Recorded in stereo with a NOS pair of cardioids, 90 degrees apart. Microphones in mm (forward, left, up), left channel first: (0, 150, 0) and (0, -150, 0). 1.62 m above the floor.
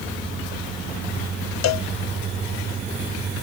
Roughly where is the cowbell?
Ahead left.